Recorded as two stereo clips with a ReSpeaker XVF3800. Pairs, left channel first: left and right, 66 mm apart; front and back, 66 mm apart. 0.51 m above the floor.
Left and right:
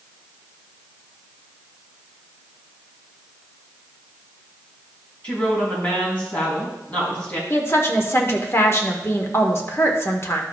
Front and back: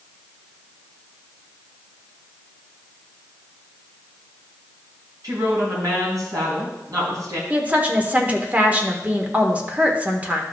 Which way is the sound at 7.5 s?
120° left.